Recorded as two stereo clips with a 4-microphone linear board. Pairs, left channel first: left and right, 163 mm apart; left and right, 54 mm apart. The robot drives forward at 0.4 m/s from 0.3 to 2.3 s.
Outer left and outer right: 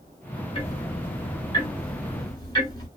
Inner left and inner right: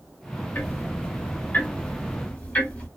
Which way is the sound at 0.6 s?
40° left (ahead or behind).